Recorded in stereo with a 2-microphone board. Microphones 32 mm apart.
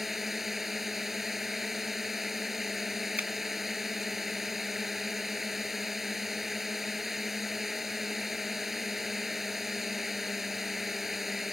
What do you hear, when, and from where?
0.0 s a drone: 10° right (ahead or behind)
3.2 s a finger snap: 55° right (ahead or behind)